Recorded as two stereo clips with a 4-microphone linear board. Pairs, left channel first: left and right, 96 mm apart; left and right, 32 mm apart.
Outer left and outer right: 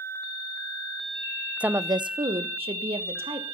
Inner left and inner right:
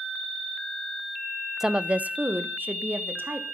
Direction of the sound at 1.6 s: 10° right (ahead or behind).